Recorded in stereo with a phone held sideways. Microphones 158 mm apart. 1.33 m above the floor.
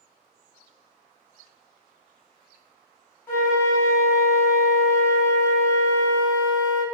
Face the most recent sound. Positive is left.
turn(degrees=15)  # may be behind; listen again after turning